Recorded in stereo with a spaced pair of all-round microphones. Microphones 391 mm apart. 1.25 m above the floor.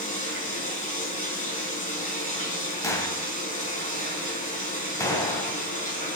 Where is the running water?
20° left (ahead or behind), 4.5 m.